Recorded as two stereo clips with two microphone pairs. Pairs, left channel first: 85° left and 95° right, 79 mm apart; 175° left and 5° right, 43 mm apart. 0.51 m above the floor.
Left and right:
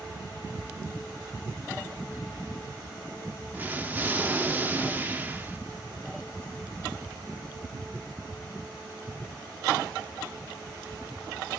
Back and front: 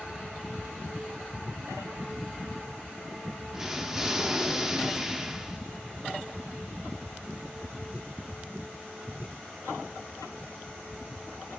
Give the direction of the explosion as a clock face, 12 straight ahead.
2 o'clock.